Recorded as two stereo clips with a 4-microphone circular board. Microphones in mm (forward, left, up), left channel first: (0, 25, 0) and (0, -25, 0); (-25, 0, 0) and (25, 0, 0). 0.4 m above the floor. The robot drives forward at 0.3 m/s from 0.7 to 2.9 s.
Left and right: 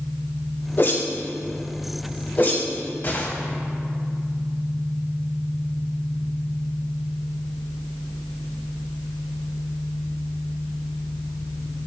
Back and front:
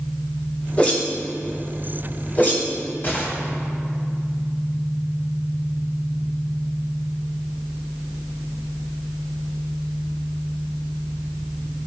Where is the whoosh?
120° left, 2 m; by 3.3 s 135° left, 2.5 m.